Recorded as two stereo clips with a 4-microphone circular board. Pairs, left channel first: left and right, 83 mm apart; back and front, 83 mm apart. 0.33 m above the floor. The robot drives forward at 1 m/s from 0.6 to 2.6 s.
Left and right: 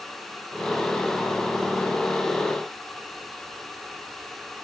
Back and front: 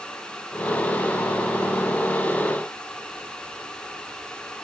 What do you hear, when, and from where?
Only background noise.